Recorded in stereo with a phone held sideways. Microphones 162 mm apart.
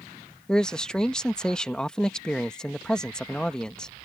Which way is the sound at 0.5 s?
5° left (ahead or behind).